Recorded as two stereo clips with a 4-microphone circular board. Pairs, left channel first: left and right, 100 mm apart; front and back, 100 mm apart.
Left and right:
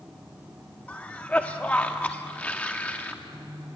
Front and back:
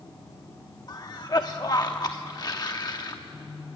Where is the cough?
20° left, 0.8 m.